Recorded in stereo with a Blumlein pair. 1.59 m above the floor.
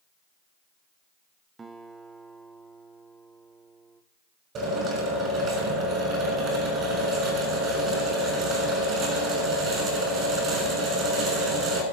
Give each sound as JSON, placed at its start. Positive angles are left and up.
{"t": 1.6, "sound": "a guitar", "azimuth_deg": -15, "distance_m": 1.2}
{"t": 4.5, "sound": "a drill", "azimuth_deg": -30, "distance_m": 6.5}